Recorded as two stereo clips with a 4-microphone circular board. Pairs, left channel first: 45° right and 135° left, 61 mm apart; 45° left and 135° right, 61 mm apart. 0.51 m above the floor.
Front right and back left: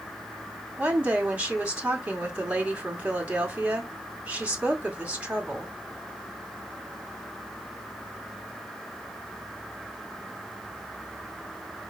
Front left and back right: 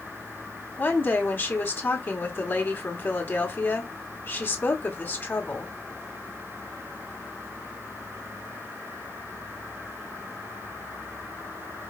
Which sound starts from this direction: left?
A woman speaking, at 0.8 s.